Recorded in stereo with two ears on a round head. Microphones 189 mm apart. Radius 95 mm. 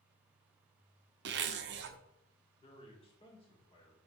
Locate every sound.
1.2 s a zipper: 55° right (ahead or behind), 0.7 m
2.6 s a man speaking: 25° left (ahead or behind), 2 m